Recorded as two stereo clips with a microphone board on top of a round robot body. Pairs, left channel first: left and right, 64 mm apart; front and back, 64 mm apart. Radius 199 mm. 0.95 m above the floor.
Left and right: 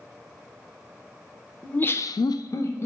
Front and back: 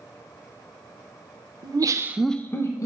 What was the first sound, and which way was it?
Laughter, 160° left.